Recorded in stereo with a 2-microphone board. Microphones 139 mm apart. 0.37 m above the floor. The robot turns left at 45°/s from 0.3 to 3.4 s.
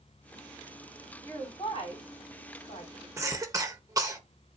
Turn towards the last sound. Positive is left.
turn(degrees=-25)  # may be behind; listen again after turning